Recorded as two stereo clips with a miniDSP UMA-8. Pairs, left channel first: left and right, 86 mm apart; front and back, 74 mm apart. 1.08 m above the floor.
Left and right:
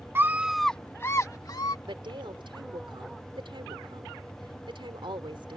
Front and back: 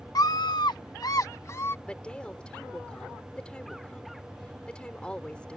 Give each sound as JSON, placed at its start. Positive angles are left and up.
{"t": 0.1, "sound": "a scream", "azimuth_deg": -30}
{"t": 1.9, "sound": "a woman speaking", "azimuth_deg": -75}